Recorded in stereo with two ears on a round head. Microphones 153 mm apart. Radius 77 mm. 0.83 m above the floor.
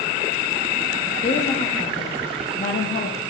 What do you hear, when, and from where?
1.2 s a woman speaking: 35° left (ahead or behind), 1.5 m